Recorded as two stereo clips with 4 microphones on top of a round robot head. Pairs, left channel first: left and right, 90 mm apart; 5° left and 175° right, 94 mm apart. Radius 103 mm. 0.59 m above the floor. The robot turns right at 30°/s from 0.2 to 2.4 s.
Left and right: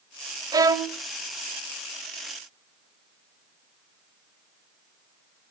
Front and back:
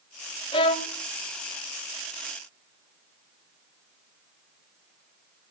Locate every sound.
0.5 s a violin: 40° right, 0.7 m; by 1.0 s 25° right, 0.7 m